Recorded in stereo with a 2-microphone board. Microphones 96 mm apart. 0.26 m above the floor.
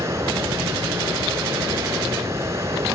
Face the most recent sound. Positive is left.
turn(degrees=-30)  # may be behind; listen again after turning